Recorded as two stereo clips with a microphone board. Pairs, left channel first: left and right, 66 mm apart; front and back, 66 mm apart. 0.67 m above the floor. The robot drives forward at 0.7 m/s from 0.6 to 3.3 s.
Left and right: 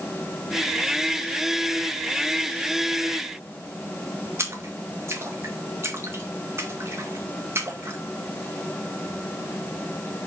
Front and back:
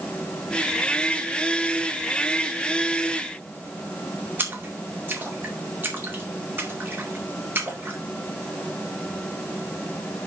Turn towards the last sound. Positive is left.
turn(degrees=-130)